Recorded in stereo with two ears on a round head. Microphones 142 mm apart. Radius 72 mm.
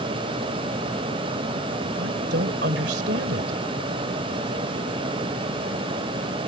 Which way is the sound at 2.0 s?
70° right (ahead or behind).